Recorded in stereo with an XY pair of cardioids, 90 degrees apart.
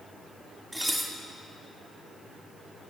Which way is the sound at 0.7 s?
10° right.